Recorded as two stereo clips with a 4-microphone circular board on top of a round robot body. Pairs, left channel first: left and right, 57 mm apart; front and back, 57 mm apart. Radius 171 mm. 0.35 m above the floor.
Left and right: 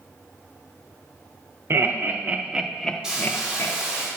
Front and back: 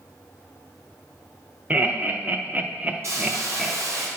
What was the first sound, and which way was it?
Laughter, 120° right.